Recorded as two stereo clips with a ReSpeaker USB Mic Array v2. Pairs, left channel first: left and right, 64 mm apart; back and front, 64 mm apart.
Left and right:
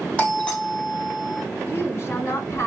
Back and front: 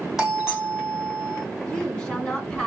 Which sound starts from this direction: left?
A doorbell, at 0.2 s.